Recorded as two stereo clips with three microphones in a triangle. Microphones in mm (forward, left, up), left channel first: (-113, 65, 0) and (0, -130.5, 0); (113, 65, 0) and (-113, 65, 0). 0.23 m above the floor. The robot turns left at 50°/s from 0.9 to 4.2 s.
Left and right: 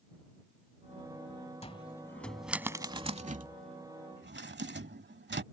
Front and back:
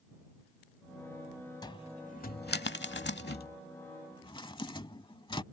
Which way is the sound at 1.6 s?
70° left.